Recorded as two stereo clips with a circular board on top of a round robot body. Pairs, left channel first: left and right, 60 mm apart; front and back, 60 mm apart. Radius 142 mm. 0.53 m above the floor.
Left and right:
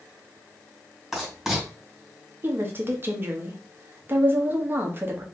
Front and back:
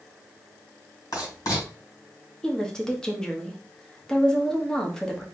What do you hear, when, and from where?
1.1 s writing: straight ahead, 2.5 m
2.4 s a woman speaking: 70° right, 1.2 m